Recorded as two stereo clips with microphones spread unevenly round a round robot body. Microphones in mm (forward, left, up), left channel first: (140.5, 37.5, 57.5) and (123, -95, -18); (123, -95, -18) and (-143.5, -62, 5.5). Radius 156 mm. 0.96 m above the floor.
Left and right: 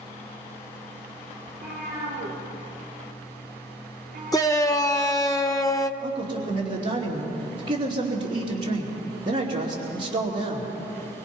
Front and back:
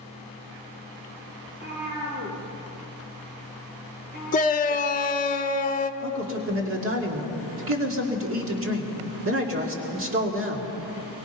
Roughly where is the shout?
Ahead.